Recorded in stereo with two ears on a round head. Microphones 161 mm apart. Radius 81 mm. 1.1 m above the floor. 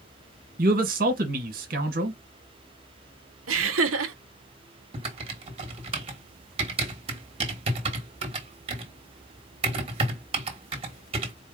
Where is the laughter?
85° right, 0.8 m.